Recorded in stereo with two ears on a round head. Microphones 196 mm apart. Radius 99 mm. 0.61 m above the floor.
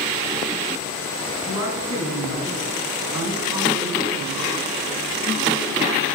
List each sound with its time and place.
1.5 s a woman speaking: 80° left, 6 m; by 4.4 s 75° left (ahead or behind), 3.5 m